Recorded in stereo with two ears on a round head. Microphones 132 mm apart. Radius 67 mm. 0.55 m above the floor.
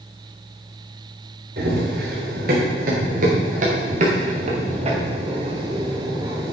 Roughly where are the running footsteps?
Right.